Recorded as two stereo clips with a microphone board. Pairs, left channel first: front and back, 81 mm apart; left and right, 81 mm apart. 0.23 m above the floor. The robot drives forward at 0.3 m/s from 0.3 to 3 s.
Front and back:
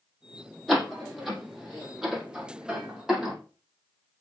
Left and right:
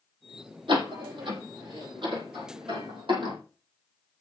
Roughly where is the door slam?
Right.